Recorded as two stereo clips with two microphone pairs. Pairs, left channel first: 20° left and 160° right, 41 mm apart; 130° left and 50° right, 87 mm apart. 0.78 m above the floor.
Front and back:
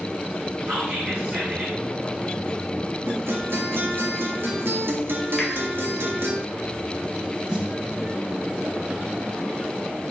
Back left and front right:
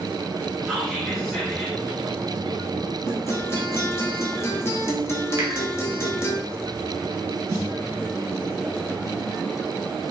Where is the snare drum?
100° right, 1.2 m.